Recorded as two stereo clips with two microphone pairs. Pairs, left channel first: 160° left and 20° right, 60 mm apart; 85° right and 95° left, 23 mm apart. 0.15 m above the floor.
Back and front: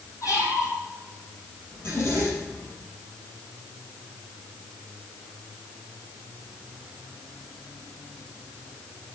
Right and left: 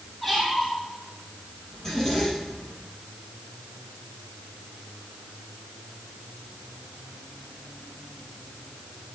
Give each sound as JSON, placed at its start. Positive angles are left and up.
{"t": 0.2, "sound": "a squeak", "azimuth_deg": -170, "distance_m": 3.5}
{"t": 1.7, "sound": "a zipper", "azimuth_deg": -155, "distance_m": 4.0}